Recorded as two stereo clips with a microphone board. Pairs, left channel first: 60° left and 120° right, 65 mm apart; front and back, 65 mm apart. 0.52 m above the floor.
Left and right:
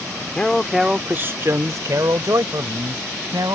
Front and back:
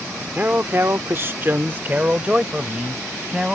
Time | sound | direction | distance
0.3 | a man speaking | 130° left | ?